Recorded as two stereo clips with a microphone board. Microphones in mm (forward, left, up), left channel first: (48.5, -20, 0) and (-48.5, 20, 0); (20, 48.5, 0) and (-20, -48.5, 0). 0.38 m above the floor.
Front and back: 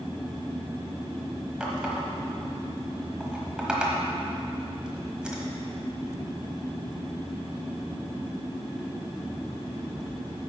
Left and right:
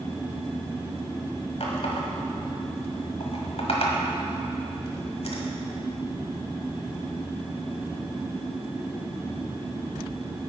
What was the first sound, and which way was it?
A running tap, 75° left.